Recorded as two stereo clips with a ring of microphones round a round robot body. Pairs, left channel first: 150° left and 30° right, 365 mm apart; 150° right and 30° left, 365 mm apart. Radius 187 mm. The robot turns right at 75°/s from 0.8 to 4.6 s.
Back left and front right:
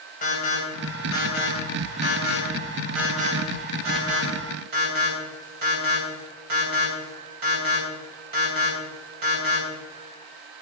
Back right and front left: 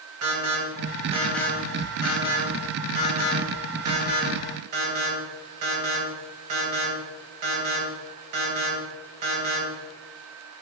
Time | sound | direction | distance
0.2 | an alarm | 80° left | 4 m